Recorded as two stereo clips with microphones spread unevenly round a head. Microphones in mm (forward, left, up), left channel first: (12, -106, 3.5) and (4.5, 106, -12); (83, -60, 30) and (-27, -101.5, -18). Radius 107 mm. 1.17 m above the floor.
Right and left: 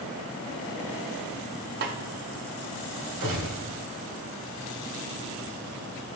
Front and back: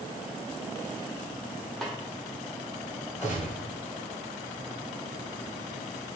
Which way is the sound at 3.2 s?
105° left.